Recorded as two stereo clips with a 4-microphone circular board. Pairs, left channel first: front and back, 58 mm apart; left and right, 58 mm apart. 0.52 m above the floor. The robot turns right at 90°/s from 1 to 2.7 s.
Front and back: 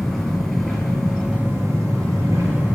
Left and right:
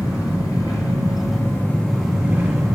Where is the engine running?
85° left, 3 m; by 2.8 s 125° right, 3 m.